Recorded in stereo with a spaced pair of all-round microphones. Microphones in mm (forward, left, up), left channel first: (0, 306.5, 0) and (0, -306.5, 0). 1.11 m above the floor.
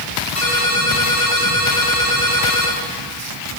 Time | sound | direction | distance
0.3 | a ringtone | 60° left (ahead or behind) | 7 m